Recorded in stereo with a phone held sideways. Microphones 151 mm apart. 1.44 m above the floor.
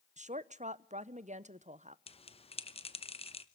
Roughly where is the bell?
Left.